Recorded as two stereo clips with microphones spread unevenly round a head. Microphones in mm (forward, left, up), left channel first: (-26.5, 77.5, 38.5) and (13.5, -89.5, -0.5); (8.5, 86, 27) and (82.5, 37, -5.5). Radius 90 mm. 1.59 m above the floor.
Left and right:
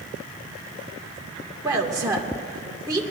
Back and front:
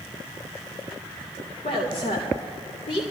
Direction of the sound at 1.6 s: 150° right.